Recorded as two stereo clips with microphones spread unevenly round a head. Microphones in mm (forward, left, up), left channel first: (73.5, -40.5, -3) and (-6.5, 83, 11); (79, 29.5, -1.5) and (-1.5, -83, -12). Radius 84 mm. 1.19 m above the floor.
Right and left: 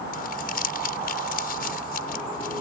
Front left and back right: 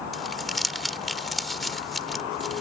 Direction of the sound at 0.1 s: 35° right.